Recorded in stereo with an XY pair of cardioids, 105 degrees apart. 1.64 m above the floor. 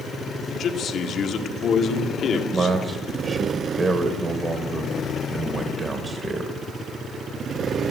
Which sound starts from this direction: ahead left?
A man speaking, at 0.5 s.